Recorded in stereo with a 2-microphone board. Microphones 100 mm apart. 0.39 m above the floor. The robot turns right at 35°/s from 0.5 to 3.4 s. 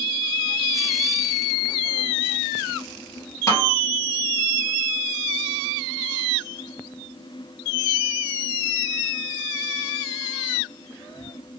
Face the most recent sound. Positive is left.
turn(degrees=30)  # may be behind; listen again after turning